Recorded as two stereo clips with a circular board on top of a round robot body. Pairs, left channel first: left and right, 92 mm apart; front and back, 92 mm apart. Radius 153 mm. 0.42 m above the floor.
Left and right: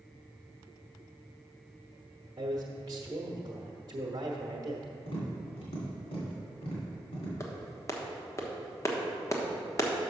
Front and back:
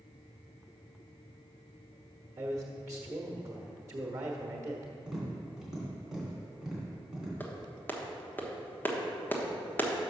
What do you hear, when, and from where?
2.4 s a man speaking: 130° right, 1.1 m
5.1 s tapping: 95° left, 2.5 m
7.4 s a clap: 60° left, 1.3 m